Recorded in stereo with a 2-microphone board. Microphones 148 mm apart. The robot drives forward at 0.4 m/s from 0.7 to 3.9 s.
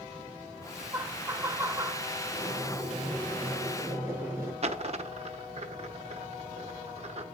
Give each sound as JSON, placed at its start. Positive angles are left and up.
{"t": 0.9, "sound": "laughter", "side_deg": -15, "distance_m": 1.1}
{"t": 2.3, "sound": "boiling", "side_deg": -15, "distance_m": 7.5}
{"t": 4.6, "sound": "a dropped coin", "side_deg": -45, "distance_m": 0.9}